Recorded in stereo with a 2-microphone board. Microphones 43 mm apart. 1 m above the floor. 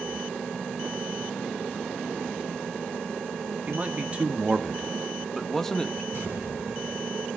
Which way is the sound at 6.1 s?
80° right.